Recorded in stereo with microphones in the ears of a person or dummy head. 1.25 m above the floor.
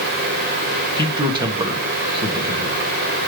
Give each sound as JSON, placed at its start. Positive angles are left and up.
{"t": 1.0, "sound": "a man speaking", "side_deg": -25, "distance_m": 1.7}